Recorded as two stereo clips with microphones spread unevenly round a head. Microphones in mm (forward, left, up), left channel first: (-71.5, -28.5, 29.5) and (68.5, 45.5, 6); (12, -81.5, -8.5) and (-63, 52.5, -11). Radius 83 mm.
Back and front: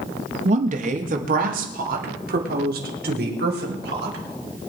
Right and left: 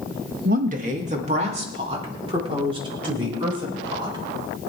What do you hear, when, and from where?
0.5 s a woman speaking: 75° left, 1.7 m; by 4.2 s 55° left, 6 m